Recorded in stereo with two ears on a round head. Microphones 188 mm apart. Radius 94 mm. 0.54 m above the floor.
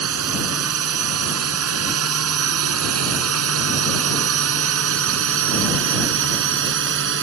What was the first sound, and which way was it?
A drone, 75° right (ahead or behind).